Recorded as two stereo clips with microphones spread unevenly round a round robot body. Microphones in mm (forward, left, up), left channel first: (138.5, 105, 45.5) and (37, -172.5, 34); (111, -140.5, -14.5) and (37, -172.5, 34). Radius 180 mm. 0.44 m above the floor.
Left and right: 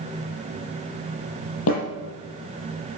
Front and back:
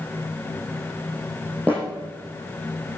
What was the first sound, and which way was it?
A snare drum, 125° left.